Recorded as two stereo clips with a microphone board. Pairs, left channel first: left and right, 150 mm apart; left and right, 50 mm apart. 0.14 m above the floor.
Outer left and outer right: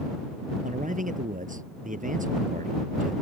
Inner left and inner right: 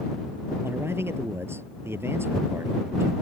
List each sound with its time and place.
0.6 s a man speaking: 55° right (ahead or behind)